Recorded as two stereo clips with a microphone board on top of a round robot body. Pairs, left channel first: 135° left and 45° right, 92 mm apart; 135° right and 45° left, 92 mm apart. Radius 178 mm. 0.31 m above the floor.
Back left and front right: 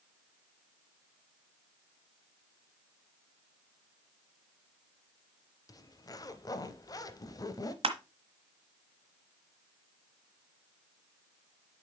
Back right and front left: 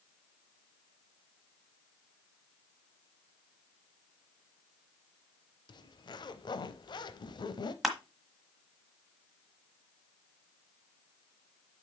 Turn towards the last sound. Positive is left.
turn(degrees=-40)